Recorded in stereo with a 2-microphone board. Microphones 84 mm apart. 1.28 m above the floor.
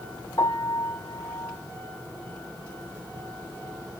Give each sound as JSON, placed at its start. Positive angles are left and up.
{"t": 0.4, "sound": "a piano", "side_deg": 45, "distance_m": 1.2}